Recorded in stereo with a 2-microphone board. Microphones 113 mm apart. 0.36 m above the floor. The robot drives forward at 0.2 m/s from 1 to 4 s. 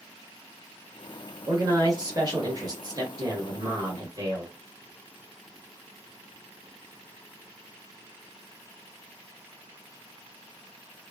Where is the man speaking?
35° right (ahead or behind), 1.0 m.